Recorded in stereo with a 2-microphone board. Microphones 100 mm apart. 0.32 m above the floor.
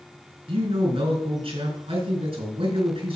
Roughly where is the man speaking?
Right.